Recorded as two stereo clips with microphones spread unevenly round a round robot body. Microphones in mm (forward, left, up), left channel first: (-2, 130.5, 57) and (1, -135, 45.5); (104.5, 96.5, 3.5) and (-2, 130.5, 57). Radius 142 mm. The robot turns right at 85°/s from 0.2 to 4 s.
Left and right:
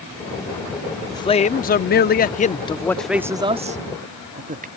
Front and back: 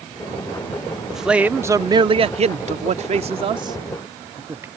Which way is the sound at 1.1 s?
20° left.